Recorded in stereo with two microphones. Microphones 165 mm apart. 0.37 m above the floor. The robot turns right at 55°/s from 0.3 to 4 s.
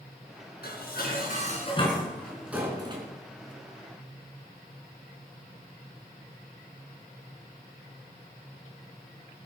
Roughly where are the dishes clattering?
Left.